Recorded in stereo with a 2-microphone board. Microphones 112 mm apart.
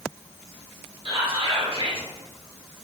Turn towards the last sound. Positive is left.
turn(degrees=-50)  # may be behind; listen again after turning